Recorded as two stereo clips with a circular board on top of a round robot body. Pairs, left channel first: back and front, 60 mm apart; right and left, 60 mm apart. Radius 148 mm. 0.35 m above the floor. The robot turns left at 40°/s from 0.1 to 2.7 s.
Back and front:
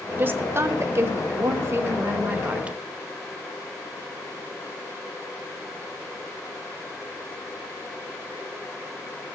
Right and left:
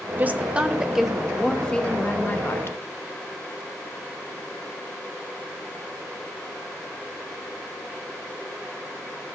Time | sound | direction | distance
0.2 | a woman speaking | 40° left | 1.0 m